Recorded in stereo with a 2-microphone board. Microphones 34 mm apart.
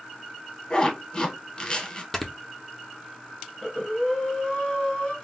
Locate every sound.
0.7 s a zipper: 25° left (ahead or behind), 0.9 m
2.1 s snoring: 10° left (ahead or behind), 0.6 m
3.6 s breathing: 25° left (ahead or behind), 1.5 m